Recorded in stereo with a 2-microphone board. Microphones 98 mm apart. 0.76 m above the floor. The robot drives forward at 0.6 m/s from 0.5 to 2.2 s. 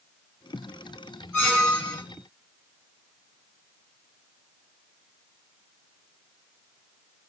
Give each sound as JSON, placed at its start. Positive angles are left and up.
{"t": 1.3, "sound": "a squeak", "side_deg": 15, "distance_m": 1.0}